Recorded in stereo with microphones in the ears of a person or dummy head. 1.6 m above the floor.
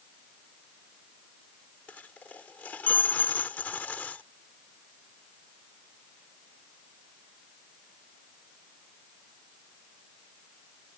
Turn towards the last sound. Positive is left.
turn(degrees=10)  # may be behind; listen again after turning